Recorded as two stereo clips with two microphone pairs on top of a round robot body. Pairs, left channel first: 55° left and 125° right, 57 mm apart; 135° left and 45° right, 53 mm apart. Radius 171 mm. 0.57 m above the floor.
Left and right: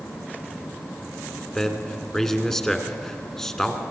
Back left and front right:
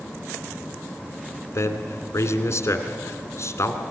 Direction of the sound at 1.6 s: 135° left.